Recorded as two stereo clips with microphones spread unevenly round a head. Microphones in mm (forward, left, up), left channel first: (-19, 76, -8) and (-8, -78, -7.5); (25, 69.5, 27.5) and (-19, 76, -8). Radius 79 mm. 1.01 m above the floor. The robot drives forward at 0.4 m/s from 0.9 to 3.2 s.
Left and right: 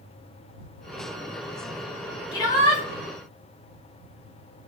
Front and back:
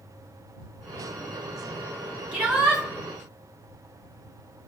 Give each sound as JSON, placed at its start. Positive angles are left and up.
{"t": 2.3, "sound": "a shout", "azimuth_deg": 160, "distance_m": 1.7}